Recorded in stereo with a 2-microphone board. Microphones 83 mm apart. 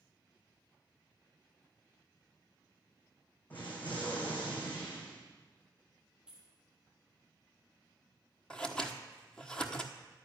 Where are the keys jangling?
10° right (ahead or behind), 2.5 m.